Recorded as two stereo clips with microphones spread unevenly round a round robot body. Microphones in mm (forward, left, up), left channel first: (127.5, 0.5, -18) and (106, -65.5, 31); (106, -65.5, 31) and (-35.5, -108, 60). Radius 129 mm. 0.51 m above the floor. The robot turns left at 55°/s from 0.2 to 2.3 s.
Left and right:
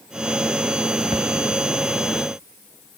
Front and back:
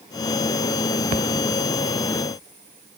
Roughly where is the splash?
Behind right.